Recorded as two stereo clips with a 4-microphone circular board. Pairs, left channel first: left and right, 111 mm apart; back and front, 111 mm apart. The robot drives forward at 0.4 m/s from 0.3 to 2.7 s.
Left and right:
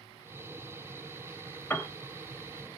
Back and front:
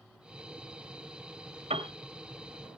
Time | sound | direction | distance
1.7 | a piano | 20° left | 1.4 m